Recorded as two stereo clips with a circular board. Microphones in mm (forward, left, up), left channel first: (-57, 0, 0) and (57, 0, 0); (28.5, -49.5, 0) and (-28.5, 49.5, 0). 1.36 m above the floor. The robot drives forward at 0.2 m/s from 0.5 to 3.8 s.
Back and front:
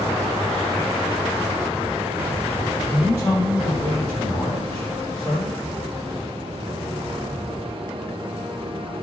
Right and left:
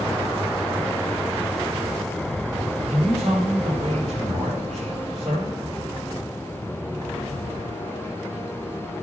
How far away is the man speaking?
About 6.5 m.